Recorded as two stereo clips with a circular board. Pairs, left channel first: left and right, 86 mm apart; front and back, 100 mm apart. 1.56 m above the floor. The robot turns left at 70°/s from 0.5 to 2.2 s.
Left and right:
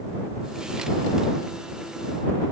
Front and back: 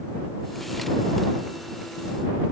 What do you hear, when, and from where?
Only background noise.